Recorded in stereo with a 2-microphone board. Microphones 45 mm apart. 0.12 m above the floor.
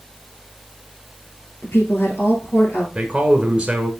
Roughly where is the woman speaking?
Left.